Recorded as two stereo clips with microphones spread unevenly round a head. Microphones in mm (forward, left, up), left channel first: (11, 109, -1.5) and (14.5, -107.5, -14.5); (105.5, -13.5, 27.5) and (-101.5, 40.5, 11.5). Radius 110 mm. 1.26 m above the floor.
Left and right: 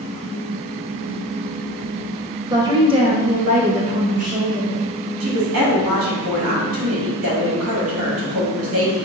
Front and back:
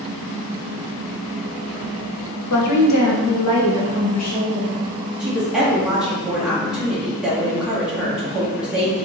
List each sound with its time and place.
2.5 s a woman speaking: 15° right, 0.7 m; by 4.8 s 35° right, 1.8 m
5.2 s a woman speaking: 110° right, 1.4 m